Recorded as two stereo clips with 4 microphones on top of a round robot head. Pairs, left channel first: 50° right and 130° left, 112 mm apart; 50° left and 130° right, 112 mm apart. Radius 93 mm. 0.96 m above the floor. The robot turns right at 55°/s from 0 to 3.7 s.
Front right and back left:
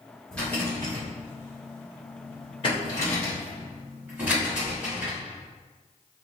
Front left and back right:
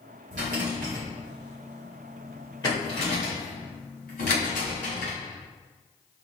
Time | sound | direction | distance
0.3 | a rattle | 135° right | 0.9 m